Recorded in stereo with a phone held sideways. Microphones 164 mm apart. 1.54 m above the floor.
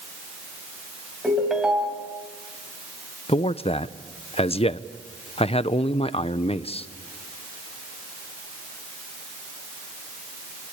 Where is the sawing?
I don't hear sawing.